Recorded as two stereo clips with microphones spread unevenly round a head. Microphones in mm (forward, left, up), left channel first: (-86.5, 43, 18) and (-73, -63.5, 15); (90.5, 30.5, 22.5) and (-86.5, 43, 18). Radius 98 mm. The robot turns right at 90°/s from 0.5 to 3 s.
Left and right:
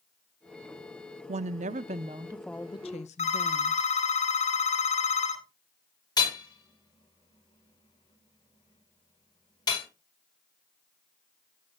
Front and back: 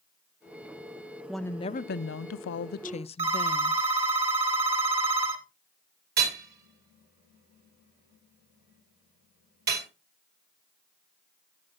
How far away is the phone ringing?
About 2.5 m.